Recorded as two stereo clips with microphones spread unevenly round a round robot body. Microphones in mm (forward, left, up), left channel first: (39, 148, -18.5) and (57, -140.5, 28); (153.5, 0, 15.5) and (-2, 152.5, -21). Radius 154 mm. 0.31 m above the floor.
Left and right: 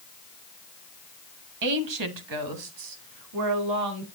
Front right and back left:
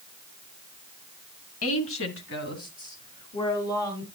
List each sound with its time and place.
1.6 s a woman speaking: 75° right, 2 m; by 4.0 s 130° right, 4 m